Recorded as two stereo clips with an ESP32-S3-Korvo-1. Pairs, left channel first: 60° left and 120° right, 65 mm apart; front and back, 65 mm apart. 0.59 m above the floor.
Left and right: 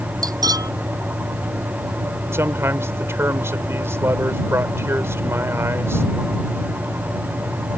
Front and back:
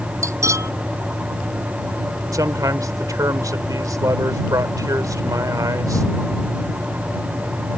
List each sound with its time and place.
0.2 s cutlery clinking: 140° right
2.3 s a man speaking: 165° right